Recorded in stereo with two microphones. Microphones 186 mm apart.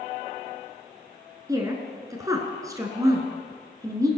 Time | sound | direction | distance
1.5 | a woman speaking | 20° right (ahead or behind) | 1.3 m